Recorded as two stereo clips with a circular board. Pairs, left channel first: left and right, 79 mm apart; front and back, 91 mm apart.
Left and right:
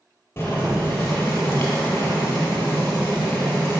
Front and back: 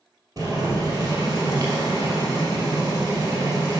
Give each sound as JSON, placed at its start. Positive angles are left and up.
{"t": 0.4, "sound": "boiling", "azimuth_deg": 145, "distance_m": 2.5}